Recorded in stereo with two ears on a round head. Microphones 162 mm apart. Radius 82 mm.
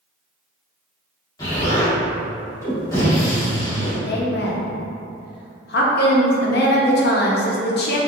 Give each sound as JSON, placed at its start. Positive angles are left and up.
{"t": 1.4, "sound": "an explosion", "side_deg": 20, "distance_m": 1.3}
{"t": 4.1, "sound": "a woman speaking", "side_deg": 60, "distance_m": 0.7}